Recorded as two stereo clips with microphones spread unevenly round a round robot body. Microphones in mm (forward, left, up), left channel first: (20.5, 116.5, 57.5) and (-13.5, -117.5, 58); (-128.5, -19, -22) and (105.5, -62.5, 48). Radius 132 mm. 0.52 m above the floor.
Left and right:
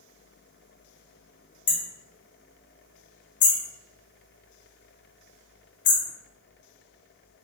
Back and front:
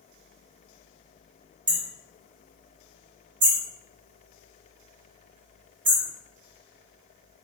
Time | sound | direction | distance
1.7 | hammering | 40° left | 2.5 m